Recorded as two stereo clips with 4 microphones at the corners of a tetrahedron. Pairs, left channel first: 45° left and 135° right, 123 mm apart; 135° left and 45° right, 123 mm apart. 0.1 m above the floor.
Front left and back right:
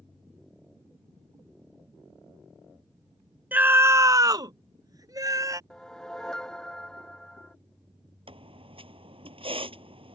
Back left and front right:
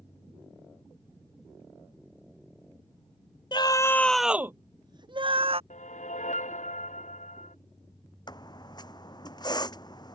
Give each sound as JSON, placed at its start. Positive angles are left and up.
{"t": 3.5, "sound": "a scream", "azimuth_deg": 155}
{"t": 5.7, "sound": "a whoosh", "azimuth_deg": 130}
{"t": 8.3, "sound": "a squeak", "azimuth_deg": -175}